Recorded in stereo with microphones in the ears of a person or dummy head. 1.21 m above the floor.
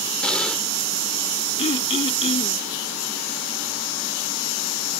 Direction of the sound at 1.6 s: 30° left (ahead or behind).